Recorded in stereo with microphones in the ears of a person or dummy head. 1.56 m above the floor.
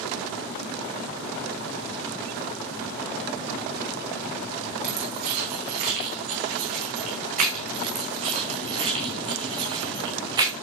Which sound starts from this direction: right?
Keys jangling, at 4.8 s.